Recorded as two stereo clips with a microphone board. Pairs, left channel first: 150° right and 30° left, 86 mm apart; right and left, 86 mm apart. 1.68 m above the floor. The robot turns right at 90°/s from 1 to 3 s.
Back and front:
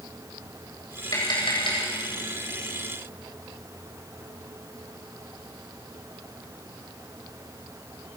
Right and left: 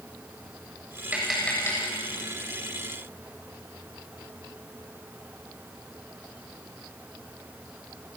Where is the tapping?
165° left, 8.5 m; by 1.8 s 135° right, 8.5 m.